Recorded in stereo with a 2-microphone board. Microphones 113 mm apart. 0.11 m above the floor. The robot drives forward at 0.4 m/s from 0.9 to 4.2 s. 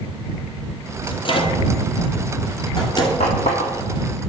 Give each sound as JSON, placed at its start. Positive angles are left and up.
{"t": 1.1, "sound": "a microwave", "side_deg": 50, "distance_m": 1.9}
{"t": 3.2, "sound": "a running tap", "side_deg": 65, "distance_m": 4.0}